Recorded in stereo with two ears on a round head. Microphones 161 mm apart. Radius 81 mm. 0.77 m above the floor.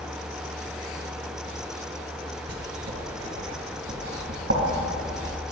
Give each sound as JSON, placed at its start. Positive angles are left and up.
{"t": 2.5, "sound": "writing", "side_deg": -60, "distance_m": 3.5}